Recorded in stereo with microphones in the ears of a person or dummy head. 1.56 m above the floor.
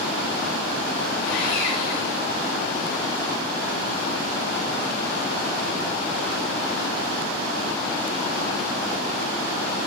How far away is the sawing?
About 7 m.